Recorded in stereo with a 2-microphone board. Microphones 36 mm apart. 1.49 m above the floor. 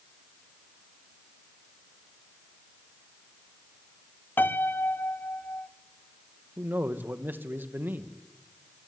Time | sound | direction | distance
4.4 | a piano | 75° left (ahead or behind) | 0.8 m
6.6 | a man speaking | 65° right (ahead or behind) | 1.8 m